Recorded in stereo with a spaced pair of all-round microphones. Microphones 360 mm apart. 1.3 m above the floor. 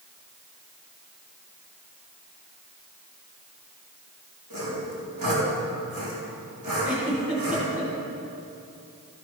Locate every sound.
4.5 s sawing: 65° right (ahead or behind), 3.5 m
6.8 s a giggle: 20° right (ahead or behind), 3.5 m